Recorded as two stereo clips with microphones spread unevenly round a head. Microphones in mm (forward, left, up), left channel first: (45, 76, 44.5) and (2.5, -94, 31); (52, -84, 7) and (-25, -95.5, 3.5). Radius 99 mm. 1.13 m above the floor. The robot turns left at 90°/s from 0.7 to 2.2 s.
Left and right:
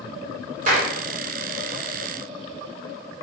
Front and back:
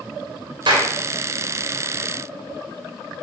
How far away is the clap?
About 3.5 m.